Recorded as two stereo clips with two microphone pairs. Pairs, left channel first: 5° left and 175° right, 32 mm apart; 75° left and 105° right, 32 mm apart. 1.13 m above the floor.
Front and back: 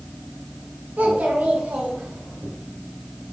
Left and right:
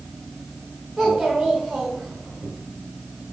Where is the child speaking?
165° left, 4 m; by 2.5 s straight behind, 3.5 m.